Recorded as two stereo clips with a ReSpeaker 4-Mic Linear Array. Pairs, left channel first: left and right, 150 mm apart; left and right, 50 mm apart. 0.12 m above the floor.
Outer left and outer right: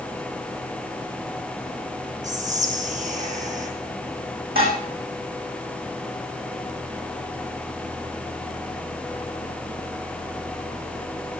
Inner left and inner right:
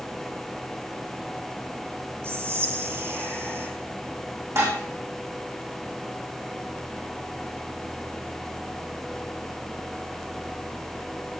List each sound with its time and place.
2.2 s whispering: 55° right (ahead or behind), 4 m
4.5 s dishes clattering: 80° right, 4.5 m